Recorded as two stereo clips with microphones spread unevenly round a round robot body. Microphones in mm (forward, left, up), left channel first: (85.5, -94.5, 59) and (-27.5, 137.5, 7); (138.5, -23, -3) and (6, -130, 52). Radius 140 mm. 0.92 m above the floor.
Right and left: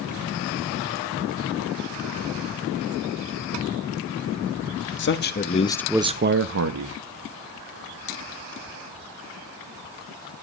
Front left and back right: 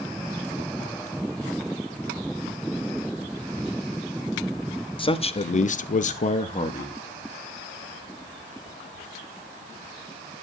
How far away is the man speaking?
About 1.5 m.